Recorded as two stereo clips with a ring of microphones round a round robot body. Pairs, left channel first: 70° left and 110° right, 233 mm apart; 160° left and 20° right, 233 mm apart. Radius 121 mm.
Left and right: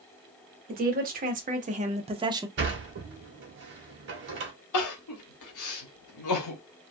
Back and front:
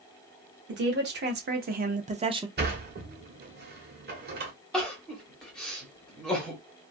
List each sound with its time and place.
0.7 s a woman speaking: 60° right, 1.2 m
2.6 s a sliding door: 70° right, 0.9 m
4.7 s crying: 70° left, 0.9 m